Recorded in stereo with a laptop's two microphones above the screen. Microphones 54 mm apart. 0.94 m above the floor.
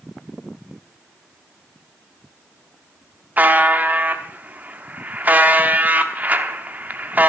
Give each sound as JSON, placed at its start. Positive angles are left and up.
{"t": 3.4, "sound": "a buzzer", "side_deg": -35, "distance_m": 0.9}